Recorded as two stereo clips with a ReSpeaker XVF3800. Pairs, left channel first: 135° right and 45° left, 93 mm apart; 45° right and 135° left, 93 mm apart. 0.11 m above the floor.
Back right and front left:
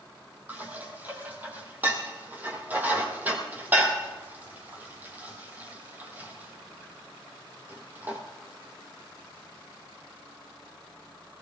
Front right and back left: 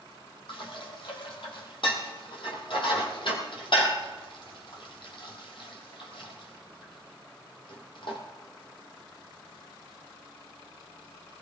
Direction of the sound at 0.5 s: 25° right.